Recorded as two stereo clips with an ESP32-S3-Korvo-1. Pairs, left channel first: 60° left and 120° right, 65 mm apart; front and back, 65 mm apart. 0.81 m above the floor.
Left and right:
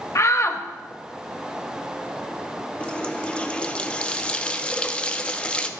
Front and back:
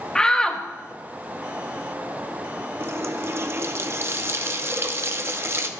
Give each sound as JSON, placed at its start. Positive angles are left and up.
{"t": 0.1, "sound": "a shout", "azimuth_deg": 75, "distance_m": 0.8}
{"t": 2.8, "sound": "a running tap", "azimuth_deg": 130, "distance_m": 0.6}